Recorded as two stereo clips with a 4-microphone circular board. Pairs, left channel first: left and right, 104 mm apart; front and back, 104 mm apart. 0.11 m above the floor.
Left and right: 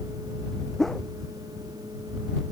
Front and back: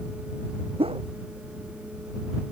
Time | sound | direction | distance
0.8 | a whoosh | straight behind | ?